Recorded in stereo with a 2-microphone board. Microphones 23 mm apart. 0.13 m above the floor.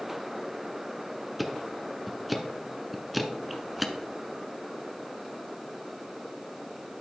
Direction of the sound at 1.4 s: 5° right (ahead or behind).